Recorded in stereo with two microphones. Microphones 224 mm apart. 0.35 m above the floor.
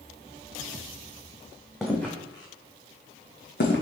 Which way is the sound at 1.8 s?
Centre (ahead or behind).